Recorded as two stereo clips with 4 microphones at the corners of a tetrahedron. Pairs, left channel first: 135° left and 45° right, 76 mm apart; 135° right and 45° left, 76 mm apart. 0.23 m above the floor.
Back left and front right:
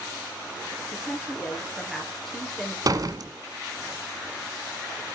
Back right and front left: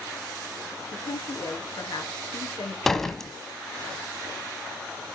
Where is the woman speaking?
140° right, 4 m.